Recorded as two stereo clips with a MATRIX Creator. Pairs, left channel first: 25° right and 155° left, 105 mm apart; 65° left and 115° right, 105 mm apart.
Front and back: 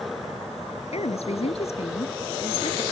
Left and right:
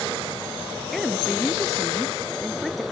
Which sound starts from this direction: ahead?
A woman speaking, at 0.9 s.